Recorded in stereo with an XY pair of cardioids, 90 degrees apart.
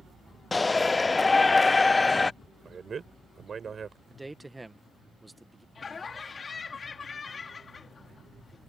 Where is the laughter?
40° left.